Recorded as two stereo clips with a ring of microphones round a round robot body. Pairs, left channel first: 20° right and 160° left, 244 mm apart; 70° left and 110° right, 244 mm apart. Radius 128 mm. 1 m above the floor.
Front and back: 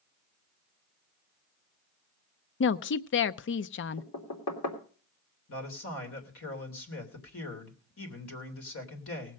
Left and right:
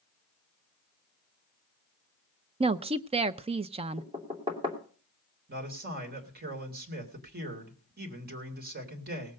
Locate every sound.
2.6 s a woman speaking: 50° right, 0.5 m
4.0 s knocking: 40° right, 3 m
5.5 s a man speaking: 60° right, 3 m